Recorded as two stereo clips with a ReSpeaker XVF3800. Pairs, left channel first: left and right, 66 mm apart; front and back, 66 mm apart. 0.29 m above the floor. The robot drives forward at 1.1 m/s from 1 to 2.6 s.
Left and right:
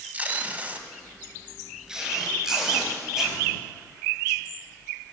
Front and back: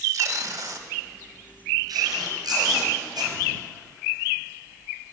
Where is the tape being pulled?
150° right, 0.6 m; by 3.4 s 175° right, 2.5 m.